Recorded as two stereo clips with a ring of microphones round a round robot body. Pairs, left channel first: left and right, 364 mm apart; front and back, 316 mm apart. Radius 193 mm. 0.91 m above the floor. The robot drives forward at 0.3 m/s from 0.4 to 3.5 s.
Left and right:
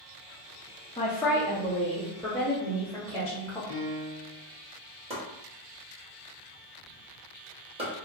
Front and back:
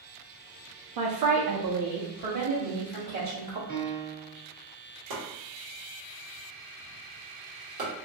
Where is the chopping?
165° right, 1.5 m.